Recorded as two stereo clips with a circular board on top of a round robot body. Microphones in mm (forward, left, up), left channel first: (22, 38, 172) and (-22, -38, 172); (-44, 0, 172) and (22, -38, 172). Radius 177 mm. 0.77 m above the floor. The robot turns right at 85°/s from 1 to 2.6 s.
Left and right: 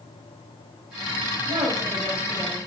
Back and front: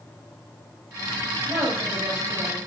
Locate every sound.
1.5 s a woman speaking: 100° right, 4 m; by 2.6 s 5° right, 4 m